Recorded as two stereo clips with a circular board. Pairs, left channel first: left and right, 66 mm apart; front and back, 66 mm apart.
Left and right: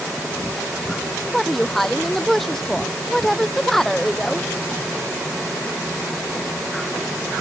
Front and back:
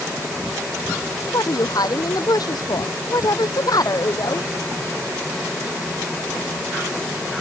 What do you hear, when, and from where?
1.3 s a woman speaking: 5° left